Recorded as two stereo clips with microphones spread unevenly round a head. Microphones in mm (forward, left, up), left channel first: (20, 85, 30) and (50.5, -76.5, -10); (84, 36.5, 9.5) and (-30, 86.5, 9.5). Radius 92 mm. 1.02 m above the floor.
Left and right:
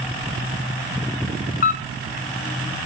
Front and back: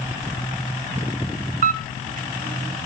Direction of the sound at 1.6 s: 160° left.